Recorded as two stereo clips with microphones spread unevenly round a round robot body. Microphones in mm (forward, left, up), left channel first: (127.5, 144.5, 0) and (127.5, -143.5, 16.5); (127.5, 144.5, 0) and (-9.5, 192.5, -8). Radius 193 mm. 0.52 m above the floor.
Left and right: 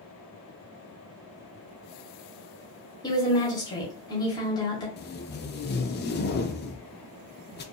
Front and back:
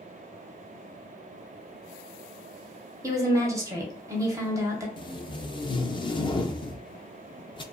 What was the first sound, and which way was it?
A woman speaking, 140° left.